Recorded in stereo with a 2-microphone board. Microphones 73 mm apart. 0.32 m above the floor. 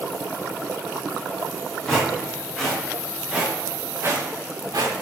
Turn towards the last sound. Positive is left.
turn(degrees=-70)  # may be behind; listen again after turning